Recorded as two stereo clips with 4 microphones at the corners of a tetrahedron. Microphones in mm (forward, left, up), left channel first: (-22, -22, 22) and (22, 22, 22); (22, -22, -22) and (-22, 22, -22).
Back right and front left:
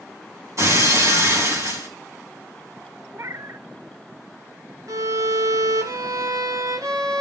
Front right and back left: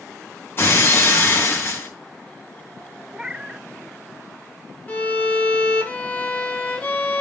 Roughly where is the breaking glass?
Ahead.